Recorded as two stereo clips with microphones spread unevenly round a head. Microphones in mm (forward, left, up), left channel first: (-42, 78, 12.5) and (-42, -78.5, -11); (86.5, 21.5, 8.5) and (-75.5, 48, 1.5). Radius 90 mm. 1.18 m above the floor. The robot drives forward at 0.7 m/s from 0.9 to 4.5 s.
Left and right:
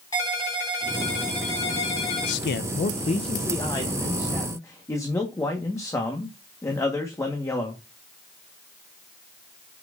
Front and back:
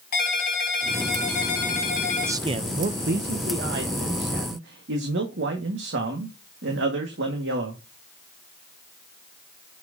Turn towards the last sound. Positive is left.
turn(degrees=165)